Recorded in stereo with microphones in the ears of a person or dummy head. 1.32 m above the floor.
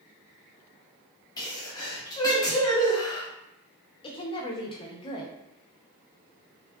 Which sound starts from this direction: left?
A woman speaking, at 4.0 s.